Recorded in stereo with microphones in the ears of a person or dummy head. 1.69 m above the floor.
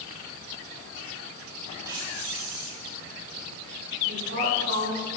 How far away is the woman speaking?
About 4 m.